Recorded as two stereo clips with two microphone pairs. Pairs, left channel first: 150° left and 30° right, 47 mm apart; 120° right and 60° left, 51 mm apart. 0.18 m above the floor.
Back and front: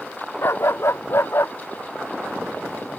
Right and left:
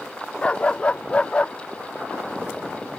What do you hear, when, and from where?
0.4 s a dog barking: 170° left